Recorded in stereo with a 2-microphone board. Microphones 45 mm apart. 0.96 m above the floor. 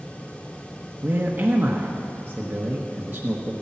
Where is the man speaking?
50° right (ahead or behind), 1.2 m.